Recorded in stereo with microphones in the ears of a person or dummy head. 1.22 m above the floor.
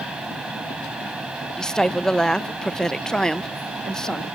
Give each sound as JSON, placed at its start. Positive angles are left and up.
{"t": 0.0, "sound": "a fan", "side_deg": -5}
{"t": 1.6, "sound": "a woman speaking", "side_deg": 0}